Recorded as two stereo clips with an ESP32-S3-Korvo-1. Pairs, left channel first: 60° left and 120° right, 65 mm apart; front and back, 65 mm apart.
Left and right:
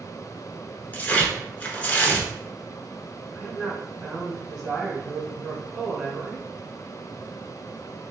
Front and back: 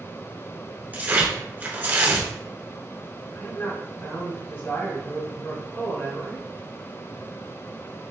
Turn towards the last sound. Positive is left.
turn(degrees=-20)